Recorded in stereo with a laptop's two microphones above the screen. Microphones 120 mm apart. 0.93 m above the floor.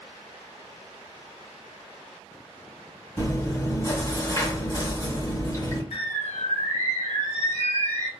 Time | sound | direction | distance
3.2 | chewing | 25° left (ahead or behind) | 2 m
5.9 | a bird | 65° left (ahead or behind) | 1.1 m